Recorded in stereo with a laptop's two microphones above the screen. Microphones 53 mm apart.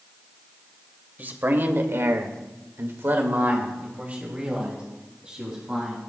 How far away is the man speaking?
About 2.5 m.